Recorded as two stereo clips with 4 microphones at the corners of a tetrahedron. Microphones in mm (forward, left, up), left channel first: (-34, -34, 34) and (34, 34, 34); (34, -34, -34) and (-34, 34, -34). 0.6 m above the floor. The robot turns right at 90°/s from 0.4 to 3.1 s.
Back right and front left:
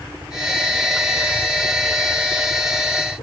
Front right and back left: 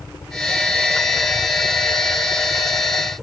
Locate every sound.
0.0 s a helicopter: 20° right; by 3.2 s 140° right